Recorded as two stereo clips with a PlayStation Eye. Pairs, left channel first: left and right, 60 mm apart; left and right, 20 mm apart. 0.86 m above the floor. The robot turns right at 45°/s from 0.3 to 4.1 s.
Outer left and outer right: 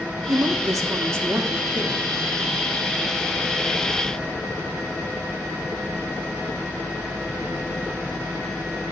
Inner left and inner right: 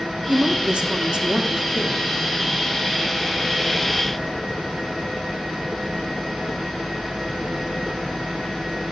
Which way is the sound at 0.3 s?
95° right.